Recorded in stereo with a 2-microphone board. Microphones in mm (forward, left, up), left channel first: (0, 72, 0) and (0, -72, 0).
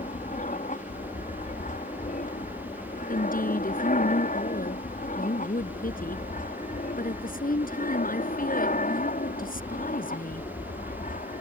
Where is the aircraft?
65° left (ahead or behind); by 11.4 s 70° left (ahead or behind).